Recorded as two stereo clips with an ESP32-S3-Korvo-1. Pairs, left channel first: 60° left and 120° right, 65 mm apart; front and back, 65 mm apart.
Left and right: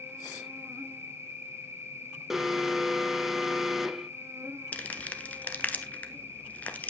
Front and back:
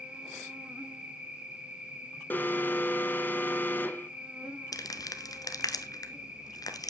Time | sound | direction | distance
0.0 | an insect | 115° right | 2 m
2.3 | an alarm | 40° right | 0.9 m
4.7 | crumpling | 5° right | 1.3 m